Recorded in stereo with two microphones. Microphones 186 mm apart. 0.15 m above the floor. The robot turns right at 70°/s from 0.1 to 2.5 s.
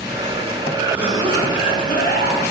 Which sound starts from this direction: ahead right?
A cough, at 0.7 s.